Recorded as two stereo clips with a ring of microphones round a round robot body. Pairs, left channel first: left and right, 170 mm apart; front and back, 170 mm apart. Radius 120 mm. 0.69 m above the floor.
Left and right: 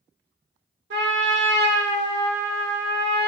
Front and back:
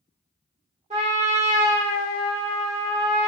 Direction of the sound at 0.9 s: 115° right.